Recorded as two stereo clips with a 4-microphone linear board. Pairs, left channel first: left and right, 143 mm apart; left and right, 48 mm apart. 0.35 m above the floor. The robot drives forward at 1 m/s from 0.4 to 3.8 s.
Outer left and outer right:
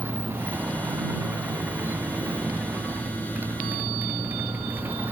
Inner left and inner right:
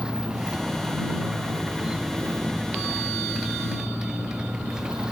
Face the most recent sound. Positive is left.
turn(degrees=-15)  # may be behind; listen again after turning